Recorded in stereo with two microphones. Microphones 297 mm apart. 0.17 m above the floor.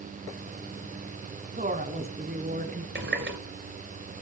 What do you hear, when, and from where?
1.6 s a woman speaking: 25° right (ahead or behind), 1.6 m; by 2.9 s 30° right (ahead or behind), 1.9 m
3.0 s a running tap: 40° right (ahead or behind), 2 m